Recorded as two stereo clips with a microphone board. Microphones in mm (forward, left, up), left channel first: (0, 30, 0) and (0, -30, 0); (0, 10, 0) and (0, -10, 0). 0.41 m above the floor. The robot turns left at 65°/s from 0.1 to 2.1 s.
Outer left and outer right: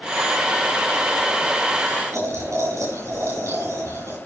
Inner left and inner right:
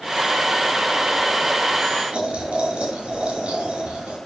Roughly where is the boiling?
Right.